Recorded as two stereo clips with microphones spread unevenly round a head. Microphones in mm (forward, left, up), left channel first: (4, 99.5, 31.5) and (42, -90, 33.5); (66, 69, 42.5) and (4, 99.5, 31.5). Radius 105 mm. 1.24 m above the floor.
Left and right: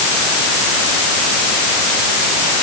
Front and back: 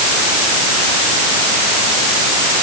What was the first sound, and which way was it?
Only background noise.